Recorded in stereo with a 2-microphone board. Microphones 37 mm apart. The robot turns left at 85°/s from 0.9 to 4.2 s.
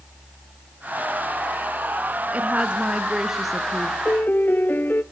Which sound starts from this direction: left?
A piano, at 4.0 s.